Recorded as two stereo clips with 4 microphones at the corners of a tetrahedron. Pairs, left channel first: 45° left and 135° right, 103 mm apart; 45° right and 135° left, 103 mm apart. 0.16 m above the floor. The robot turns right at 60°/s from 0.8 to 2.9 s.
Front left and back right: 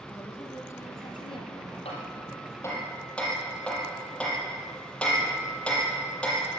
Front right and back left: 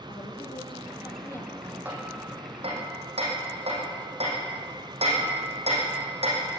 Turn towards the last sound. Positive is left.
turn(degrees=125)